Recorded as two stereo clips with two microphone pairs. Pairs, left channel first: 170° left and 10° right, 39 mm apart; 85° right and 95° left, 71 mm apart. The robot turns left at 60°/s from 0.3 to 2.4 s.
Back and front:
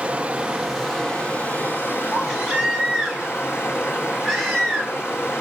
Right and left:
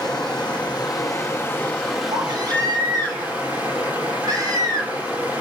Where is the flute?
No flute in this recording.